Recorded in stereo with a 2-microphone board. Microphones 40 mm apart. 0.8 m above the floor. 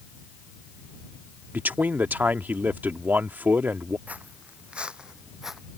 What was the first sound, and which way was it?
A man speaking, 50° right (ahead or behind).